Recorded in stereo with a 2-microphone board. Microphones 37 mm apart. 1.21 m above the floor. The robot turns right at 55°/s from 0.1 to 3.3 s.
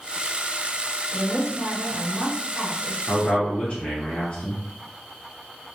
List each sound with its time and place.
1.1 s a woman speaking: 170° left, 1.3 m; by 3.0 s 90° right, 1.3 m
3.1 s a man speaking: 30° left (ahead or behind), 0.8 m; by 4.6 s 40° left (ahead or behind), 0.8 m